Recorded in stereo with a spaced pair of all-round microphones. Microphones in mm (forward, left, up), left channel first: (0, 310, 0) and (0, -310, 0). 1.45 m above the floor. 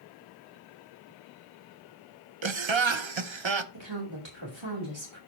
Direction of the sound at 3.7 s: 45° right (ahead or behind).